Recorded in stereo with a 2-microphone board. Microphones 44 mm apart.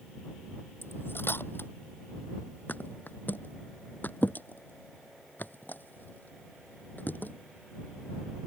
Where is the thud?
45° left (ahead or behind).